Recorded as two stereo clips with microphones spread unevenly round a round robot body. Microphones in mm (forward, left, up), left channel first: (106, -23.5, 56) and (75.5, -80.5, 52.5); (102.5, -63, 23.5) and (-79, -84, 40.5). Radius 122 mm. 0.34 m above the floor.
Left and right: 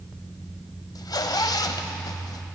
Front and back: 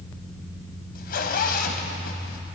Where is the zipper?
50° left, 0.9 m.